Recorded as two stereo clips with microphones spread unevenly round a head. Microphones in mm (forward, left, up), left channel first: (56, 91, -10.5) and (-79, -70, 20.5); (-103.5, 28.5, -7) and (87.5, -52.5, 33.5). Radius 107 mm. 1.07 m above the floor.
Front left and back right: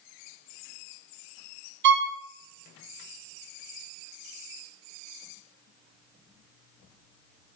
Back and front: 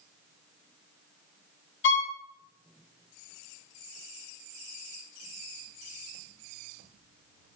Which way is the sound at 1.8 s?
170° right.